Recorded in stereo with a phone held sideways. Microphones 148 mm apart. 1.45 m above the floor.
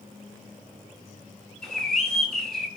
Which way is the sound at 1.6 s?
5° left (ahead or behind).